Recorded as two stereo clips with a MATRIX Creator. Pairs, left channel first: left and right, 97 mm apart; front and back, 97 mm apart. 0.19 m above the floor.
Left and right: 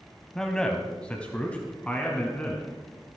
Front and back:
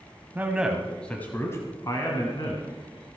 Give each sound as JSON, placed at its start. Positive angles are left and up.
{"t": 0.3, "sound": "a man speaking", "azimuth_deg": 165, "distance_m": 1.3}